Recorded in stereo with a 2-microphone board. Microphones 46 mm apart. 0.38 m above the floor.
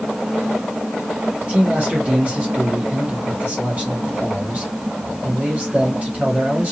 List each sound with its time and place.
1.4 s a man speaking: 30° right (ahead or behind), 2.5 m